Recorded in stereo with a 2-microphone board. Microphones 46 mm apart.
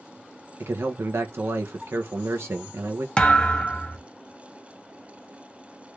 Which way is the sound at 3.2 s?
20° left (ahead or behind).